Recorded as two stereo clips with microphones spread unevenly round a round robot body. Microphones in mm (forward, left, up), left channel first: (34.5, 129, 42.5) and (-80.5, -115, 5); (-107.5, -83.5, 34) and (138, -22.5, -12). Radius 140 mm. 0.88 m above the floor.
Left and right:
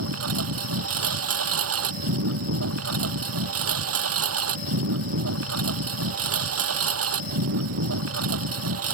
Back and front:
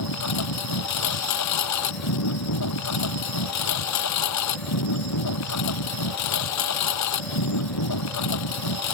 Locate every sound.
0.0 s a lawn mower: 155° right